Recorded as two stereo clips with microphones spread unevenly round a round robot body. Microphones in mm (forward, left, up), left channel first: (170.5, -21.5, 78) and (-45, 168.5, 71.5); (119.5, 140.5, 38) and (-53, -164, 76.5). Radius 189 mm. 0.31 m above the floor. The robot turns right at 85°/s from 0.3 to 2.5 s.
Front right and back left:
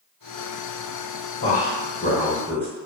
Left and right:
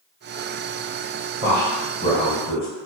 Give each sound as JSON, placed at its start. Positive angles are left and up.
{"t": 1.4, "sound": "a man speaking", "azimuth_deg": -50, "distance_m": 1.5}